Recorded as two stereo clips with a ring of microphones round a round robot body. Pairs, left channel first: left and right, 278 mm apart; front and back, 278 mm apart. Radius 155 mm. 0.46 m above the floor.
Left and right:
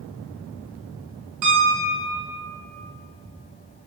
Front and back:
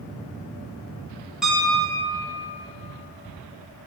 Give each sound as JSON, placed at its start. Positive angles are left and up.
{"t": 1.4, "sound": "a piano", "azimuth_deg": -90, "distance_m": 2.0}